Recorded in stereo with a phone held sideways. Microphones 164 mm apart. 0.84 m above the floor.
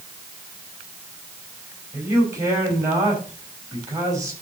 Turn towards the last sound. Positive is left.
turn(degrees=-20)  # may be behind; listen again after turning